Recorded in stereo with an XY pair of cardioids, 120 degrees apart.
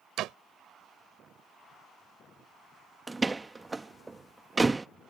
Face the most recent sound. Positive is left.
turn(degrees=-15)